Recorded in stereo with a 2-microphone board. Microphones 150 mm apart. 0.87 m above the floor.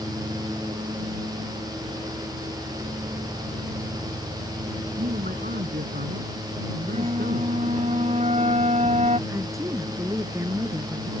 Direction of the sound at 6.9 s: 50° right (ahead or behind).